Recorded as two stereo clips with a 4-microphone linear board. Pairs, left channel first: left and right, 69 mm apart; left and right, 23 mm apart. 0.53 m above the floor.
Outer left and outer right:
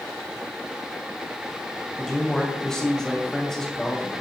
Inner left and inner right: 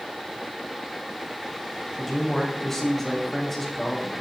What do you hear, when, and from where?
2.0 s a man speaking: 5° left (ahead or behind), 3 m